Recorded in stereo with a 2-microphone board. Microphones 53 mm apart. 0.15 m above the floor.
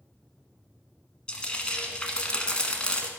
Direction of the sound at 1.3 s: 20° left (ahead or behind).